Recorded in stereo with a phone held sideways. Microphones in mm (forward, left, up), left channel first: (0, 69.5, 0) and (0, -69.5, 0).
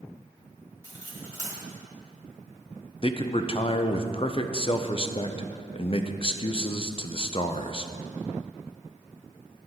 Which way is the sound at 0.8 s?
35° left (ahead or behind).